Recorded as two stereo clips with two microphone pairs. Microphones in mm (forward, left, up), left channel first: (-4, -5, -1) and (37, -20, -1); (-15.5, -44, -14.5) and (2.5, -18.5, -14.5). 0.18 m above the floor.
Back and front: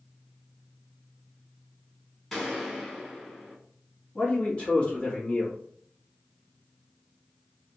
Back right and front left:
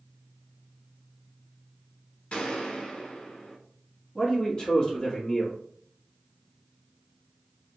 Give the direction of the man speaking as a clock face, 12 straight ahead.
5 o'clock.